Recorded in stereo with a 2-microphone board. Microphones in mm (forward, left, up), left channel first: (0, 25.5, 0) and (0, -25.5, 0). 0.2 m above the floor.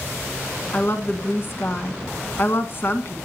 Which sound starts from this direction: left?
A woman speaking, at 0.7 s.